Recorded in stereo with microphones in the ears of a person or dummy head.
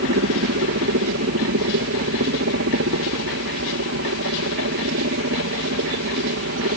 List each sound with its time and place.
0.0 s a helicopter: 60° right (ahead or behind)